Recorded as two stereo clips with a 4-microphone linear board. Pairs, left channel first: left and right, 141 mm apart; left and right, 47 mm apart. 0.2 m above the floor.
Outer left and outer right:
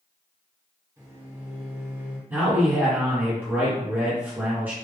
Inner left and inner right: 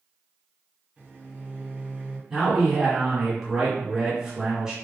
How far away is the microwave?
About 1.9 m.